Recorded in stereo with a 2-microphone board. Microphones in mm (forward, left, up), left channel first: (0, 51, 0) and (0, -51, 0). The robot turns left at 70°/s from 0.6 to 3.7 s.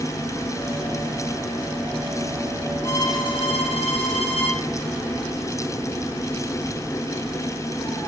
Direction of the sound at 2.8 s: 150° left.